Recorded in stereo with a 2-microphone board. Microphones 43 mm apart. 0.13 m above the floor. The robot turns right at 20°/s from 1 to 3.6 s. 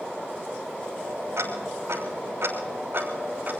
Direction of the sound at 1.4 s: 85° right.